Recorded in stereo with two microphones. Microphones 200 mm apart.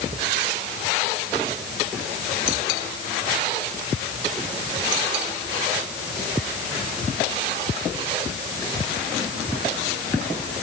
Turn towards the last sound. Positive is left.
No sound to turn to.